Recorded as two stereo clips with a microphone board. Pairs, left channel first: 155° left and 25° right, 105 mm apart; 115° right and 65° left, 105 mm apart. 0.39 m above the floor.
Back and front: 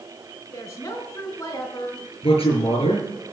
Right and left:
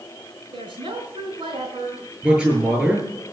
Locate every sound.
0.5 s a woman speaking: 100° left, 4.5 m
2.2 s a man speaking: 145° left, 8.5 m